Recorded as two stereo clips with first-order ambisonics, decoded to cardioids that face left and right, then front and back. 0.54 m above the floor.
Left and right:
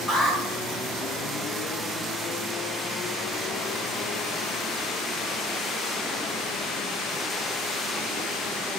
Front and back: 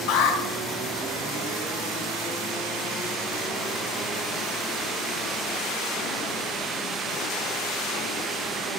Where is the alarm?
10° left, 3 m.